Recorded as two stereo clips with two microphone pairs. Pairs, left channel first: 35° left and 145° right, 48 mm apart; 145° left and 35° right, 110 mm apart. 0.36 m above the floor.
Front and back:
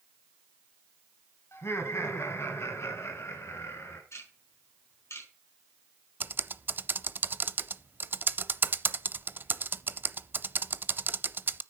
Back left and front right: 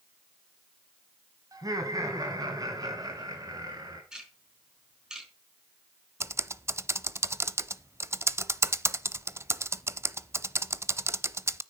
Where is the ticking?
45° left, 4.5 m.